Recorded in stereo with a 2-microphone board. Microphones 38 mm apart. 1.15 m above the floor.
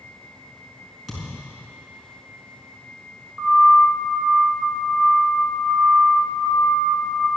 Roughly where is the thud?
Centre.